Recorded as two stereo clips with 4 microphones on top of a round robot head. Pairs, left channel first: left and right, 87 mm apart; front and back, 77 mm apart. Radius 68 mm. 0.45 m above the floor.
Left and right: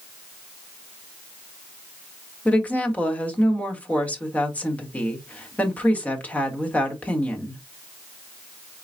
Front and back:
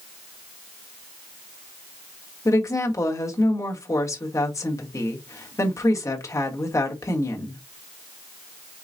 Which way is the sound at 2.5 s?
25° left.